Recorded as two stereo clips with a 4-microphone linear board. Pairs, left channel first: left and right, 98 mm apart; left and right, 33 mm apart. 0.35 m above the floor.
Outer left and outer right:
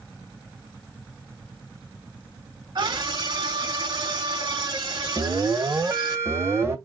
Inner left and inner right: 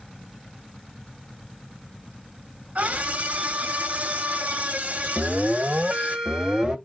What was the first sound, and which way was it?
A scream, 55° right (ahead or behind).